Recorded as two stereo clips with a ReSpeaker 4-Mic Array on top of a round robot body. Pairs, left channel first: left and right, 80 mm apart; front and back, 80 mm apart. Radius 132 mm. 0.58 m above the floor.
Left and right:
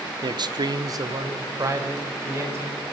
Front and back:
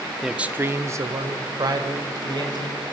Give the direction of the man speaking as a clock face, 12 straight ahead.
3 o'clock.